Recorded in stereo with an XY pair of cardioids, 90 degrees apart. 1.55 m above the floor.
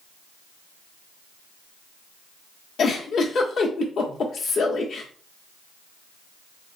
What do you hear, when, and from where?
2.8 s a giggle: 70° left, 0.8 m